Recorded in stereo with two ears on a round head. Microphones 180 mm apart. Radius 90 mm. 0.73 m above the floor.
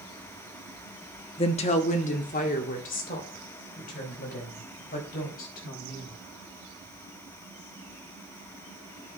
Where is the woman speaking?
30° left (ahead or behind), 1.0 m; by 6.2 s 45° left (ahead or behind), 5.5 m.